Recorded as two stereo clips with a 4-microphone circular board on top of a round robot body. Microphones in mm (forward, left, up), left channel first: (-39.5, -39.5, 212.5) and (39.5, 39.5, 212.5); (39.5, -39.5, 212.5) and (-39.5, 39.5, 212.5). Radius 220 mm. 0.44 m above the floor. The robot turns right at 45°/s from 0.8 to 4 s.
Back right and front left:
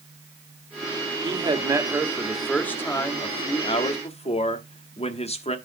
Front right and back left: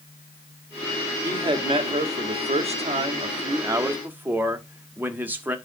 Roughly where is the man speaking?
Left.